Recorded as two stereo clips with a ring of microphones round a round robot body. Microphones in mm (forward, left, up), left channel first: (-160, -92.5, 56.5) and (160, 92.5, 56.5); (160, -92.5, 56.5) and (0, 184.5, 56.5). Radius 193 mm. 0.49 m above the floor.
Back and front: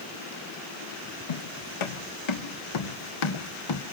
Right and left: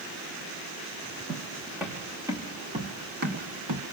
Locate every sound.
1.3 s footsteps: 145° right, 3 m; by 3.8 s 165° left, 1.7 m